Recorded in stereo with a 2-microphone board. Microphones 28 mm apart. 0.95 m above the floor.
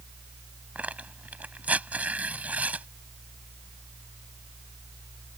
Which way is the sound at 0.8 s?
65° right (ahead or behind).